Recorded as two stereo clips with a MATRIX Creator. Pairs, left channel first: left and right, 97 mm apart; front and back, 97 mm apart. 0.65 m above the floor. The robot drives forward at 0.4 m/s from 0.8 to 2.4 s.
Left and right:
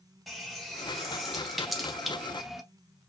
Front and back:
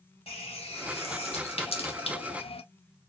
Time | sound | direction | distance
0.3 | a running tap | straight ahead | 1.3 m